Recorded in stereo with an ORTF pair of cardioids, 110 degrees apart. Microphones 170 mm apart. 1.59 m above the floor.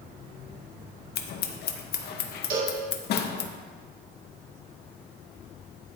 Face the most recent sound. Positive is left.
turn(degrees=-55)